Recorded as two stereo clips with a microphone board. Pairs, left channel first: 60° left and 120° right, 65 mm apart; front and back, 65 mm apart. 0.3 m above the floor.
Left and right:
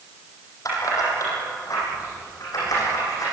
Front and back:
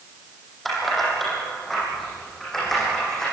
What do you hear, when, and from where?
0.7 s keys jangling: 90° left, 8 m; by 3.2 s 85° left, 11.5 m